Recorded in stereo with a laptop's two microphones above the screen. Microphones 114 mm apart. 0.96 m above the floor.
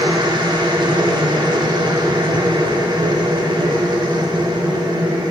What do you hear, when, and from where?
0.0 s a machine running: 40° right (ahead or behind), 0.8 m